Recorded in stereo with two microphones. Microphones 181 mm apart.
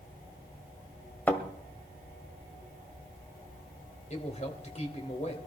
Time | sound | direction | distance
1.3 | a thud | 10° left (ahead or behind) | 1.7 m
4.1 | a man speaking | 40° left (ahead or behind) | 2.5 m